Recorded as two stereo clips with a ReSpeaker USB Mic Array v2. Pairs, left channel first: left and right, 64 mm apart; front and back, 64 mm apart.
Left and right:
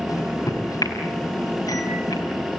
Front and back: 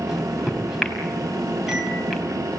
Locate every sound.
0.1 s a microwave: 95° left, 4.5 m